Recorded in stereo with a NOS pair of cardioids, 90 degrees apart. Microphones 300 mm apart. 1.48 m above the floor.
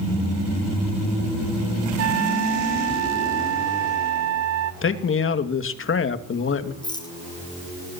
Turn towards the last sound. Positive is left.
turn(degrees=15)